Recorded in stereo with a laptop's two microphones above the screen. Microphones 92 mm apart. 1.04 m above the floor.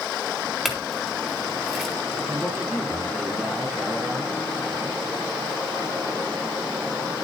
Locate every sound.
0.7 s a clink: centre (ahead or behind), 2.0 m
2.3 s a man speaking: 5° right (ahead or behind), 6.5 m